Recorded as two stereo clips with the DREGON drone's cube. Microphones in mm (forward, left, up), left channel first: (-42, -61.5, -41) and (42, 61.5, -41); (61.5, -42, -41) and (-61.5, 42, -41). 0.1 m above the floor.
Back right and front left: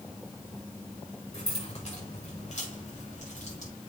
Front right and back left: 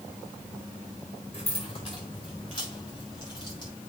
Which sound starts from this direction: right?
Keys jangling, at 1.3 s.